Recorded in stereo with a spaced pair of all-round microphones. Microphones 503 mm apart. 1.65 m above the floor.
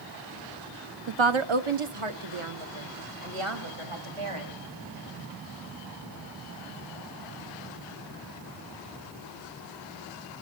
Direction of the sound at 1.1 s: 60° right (ahead or behind).